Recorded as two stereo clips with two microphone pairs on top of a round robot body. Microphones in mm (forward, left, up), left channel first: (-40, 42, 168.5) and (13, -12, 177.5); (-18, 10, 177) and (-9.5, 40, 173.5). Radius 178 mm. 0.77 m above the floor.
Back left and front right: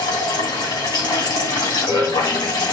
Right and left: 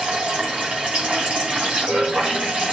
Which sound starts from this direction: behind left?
Running water, at 0.0 s.